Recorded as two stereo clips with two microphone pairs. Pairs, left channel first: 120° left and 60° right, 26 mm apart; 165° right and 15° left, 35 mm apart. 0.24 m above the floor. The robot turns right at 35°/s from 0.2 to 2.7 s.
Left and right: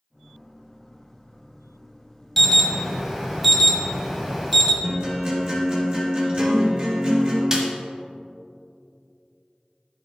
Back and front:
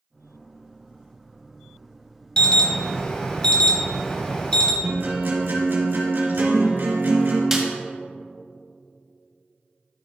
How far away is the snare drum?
About 1.5 m.